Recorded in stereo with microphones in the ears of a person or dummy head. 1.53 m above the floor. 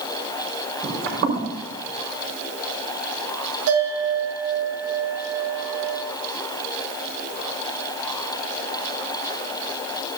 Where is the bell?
65° right (ahead or behind), 7 m.